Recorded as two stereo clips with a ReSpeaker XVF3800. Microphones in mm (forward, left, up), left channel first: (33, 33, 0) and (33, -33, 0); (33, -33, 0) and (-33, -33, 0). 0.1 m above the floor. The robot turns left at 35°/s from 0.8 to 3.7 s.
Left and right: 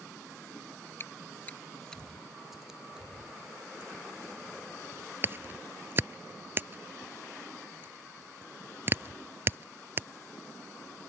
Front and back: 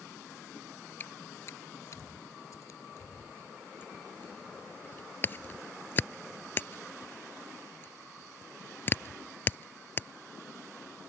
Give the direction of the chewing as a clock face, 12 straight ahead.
10 o'clock.